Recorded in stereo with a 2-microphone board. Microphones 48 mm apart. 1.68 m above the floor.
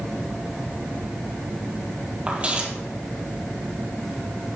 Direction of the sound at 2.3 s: 25° right (ahead or behind).